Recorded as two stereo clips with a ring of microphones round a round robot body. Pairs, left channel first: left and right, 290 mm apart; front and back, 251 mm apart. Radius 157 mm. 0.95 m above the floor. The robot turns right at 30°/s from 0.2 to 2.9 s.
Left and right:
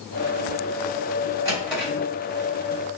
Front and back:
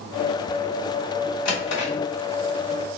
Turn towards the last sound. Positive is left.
turn(degrees=35)